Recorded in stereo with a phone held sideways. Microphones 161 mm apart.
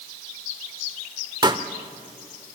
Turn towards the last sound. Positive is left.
turn(degrees=-30)  # may be behind; listen again after turning